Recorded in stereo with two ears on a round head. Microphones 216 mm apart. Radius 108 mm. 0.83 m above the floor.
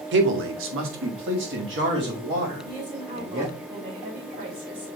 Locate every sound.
0.1 s a man speaking: 50° right (ahead or behind), 1.1 m; by 3.5 s 40° right (ahead or behind), 3.5 m
2.6 s a woman speaking: 40° right (ahead or behind), 3 m